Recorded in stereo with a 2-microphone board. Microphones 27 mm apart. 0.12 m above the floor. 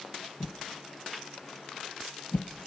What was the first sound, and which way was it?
A whoosh, 65° left (ahead or behind).